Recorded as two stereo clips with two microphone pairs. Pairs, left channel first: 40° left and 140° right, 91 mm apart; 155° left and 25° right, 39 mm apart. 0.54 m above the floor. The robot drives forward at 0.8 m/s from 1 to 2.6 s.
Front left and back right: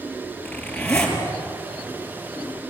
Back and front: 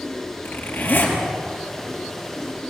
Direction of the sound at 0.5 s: 120° left.